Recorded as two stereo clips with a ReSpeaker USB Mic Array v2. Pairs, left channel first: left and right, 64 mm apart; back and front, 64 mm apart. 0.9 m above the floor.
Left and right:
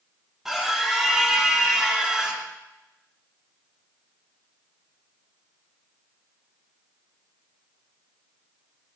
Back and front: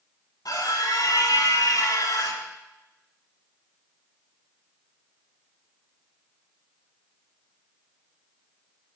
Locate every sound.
0.5 s a scream: 175° right, 8.5 m; by 2.4 s 170° right, 6.5 m